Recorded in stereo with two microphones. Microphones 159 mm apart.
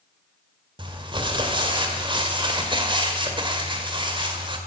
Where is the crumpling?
30° right (ahead or behind), 1.9 m.